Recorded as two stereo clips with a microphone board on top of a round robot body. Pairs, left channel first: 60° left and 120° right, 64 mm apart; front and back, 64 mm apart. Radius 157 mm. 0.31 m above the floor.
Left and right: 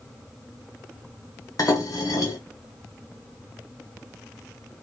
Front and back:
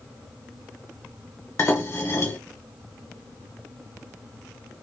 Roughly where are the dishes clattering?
Ahead left.